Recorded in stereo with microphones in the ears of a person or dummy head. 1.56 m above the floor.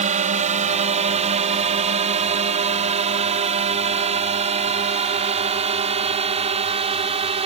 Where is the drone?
40° right (ahead or behind); by 7.5 s 35° right (ahead or behind).